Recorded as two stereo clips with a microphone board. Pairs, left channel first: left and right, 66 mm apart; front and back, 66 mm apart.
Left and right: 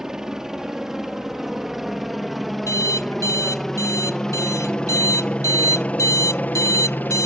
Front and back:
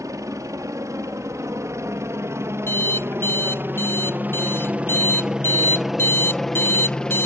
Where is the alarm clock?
50° left.